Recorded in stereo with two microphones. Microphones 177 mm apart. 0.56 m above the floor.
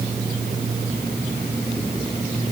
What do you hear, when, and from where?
Only background noise.